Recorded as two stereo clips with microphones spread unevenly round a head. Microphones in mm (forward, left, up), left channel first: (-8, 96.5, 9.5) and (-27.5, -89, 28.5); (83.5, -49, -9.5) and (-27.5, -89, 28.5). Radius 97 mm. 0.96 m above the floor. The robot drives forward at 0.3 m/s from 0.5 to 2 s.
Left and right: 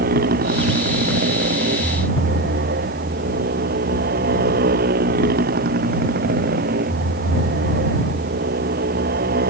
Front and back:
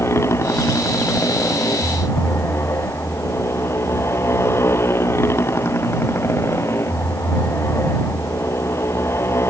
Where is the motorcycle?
50° right.